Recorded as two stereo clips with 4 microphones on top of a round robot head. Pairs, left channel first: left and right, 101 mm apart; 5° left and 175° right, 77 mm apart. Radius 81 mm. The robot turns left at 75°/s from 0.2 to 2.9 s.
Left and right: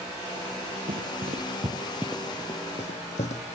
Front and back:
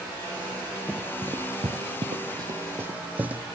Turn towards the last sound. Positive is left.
turn(degrees=115)